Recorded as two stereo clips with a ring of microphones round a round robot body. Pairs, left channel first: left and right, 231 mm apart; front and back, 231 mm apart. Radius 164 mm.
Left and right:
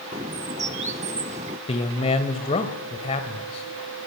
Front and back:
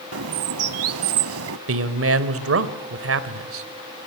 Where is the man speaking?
160° left, 2 m.